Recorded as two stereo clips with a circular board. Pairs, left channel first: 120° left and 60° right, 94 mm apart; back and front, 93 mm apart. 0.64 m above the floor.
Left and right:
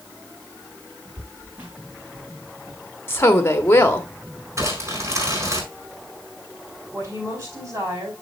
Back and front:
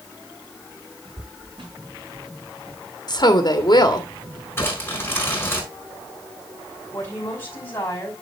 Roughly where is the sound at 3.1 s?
Behind.